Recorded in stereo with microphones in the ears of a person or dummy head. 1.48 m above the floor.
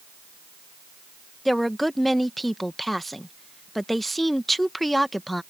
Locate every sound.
1.4 s a woman speaking: centre (ahead or behind)